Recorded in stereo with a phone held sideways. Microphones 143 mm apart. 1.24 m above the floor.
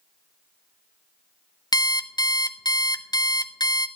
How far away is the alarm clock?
About 0.5 m.